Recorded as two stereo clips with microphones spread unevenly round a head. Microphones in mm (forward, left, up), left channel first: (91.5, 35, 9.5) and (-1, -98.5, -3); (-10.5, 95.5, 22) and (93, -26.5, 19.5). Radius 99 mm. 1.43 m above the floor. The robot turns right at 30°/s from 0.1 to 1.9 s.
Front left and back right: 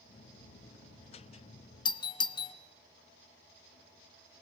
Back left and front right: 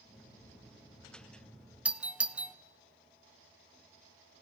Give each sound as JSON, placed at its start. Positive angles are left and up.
{"t": 1.9, "sound": "a doorbell", "azimuth_deg": 20, "distance_m": 0.9}